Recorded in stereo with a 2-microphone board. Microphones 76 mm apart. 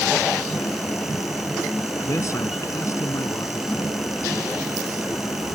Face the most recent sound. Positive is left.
turn(degrees=40)  # may be behind; listen again after turning